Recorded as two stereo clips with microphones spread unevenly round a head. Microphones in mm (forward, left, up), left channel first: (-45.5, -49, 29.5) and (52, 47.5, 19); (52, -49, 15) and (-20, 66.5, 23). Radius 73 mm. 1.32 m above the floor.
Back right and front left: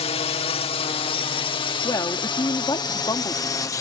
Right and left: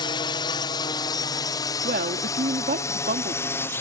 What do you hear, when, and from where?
0.0 s a drone: 100° right; by 3.8 s 95° right
1.8 s a woman speaking: 155° left